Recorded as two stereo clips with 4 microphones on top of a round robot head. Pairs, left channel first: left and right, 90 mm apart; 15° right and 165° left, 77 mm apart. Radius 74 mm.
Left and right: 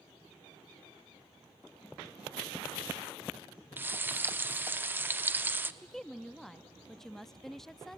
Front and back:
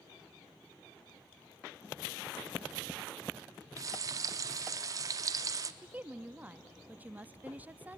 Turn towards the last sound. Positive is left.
turn(degrees=170)